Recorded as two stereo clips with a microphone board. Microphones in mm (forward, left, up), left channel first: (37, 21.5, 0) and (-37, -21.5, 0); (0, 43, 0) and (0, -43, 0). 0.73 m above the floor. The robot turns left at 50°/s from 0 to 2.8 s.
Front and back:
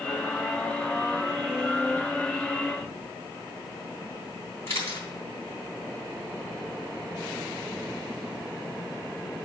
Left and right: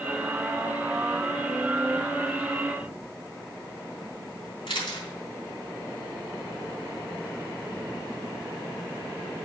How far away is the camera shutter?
About 3 m.